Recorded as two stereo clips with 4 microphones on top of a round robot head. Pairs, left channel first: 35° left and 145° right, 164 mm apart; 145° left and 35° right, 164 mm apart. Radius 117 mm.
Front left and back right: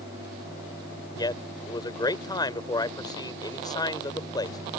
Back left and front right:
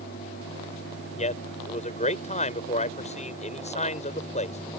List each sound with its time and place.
1.2 s a man speaking: 100° left